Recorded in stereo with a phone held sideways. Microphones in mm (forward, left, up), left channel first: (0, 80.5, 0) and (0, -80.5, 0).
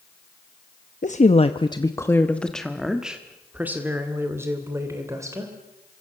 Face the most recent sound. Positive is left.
turn(degrees=-20)  # may be behind; listen again after turning